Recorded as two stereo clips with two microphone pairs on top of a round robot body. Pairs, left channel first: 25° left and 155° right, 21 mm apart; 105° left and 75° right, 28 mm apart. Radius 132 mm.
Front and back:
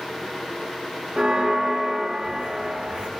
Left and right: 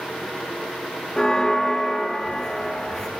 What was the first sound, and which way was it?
A bell, 170° left.